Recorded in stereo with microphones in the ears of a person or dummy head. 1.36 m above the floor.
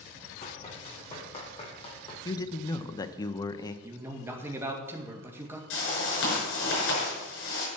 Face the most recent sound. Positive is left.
turn(degrees=80)